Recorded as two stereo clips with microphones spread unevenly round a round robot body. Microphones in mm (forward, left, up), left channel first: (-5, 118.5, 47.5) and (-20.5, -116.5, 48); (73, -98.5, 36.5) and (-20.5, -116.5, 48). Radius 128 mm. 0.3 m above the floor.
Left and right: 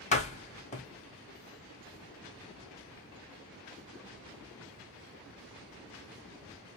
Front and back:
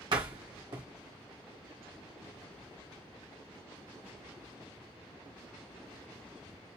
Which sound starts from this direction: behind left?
A door slam, at 0.1 s.